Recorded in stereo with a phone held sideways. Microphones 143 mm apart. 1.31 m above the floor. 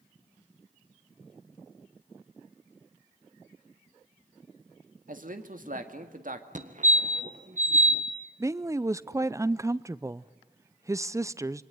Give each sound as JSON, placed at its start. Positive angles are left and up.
{"t": 5.1, "sound": "a man speaking", "side_deg": -70, "distance_m": 2.0}
{"t": 6.5, "sound": "a fire alarm", "side_deg": -60, "distance_m": 1.6}
{"t": 8.4, "sound": "a woman speaking", "side_deg": -20, "distance_m": 0.6}